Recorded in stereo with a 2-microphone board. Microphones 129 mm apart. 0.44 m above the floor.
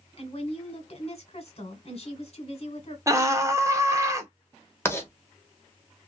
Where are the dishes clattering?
No dishes clattering in this recording.